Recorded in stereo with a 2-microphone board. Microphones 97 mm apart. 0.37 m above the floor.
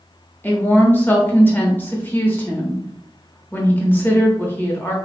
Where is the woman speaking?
20° left (ahead or behind), 0.8 m.